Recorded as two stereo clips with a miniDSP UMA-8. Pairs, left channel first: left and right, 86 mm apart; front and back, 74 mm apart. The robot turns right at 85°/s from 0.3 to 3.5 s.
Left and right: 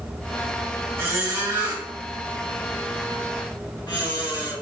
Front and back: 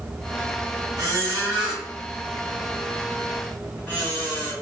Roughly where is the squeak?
Behind right.